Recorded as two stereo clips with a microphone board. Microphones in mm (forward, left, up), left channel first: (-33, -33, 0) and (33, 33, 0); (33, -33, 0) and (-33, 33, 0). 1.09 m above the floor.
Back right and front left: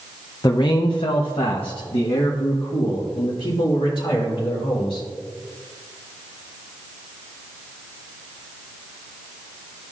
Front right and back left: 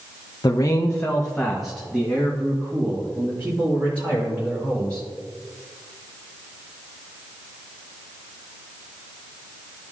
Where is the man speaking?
90° right, 0.5 m; by 5.1 s 160° right, 2.5 m.